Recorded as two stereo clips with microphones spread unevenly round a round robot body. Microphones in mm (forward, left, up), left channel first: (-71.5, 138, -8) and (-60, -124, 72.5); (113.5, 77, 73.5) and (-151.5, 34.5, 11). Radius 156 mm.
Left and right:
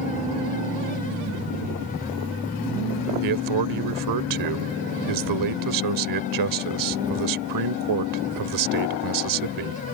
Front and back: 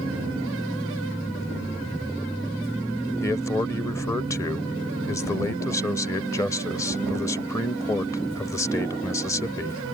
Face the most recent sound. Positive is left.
turn(degrees=-75)